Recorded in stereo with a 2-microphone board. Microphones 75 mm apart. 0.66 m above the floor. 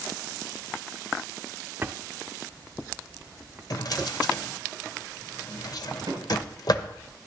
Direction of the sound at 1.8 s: 25° right (ahead or behind).